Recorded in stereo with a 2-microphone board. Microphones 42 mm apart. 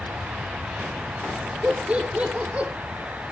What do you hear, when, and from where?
1.6 s laughter: 30° right (ahead or behind), 4 m